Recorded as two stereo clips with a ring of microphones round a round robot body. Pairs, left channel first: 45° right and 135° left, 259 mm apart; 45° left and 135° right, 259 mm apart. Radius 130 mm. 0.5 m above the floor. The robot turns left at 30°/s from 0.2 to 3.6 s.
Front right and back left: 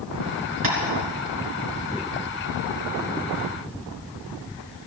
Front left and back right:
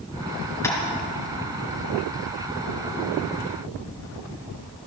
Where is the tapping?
125° left, 3.5 m; by 0.8 s 120° left, 3.5 m.